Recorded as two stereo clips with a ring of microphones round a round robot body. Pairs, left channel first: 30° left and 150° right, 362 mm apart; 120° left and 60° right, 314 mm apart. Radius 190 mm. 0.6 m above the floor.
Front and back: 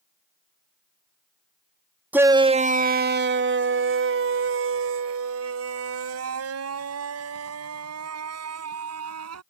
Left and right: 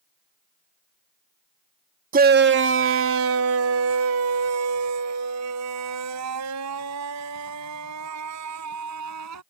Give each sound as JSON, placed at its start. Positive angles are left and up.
{"t": 2.1, "sound": "a shout", "azimuth_deg": -70}